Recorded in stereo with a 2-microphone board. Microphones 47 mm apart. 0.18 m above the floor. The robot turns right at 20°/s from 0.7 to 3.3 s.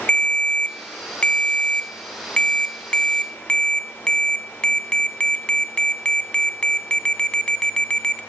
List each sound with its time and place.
0.1 s a ringtone: 25° left (ahead or behind), 0.6 m; by 8.2 s 20° left (ahead or behind), 0.6 m